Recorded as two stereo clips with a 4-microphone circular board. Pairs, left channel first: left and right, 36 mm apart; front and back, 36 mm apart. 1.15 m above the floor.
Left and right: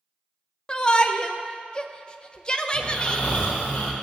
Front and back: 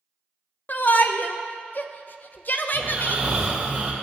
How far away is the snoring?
About 2 m.